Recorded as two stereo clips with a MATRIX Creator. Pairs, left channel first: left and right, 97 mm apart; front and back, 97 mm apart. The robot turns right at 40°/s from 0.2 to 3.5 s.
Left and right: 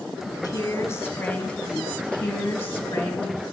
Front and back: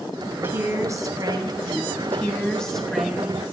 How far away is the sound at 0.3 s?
About 1.5 m.